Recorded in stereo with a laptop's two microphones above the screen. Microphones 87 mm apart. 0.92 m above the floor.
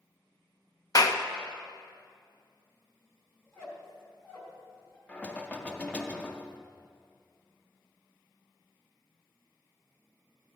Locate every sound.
0.9 s a clap: 45° left (ahead or behind), 0.6 m
3.4 s a squeak: 30° left (ahead or behind), 1.9 m
5.1 s knocking: 15° left (ahead or behind), 0.6 m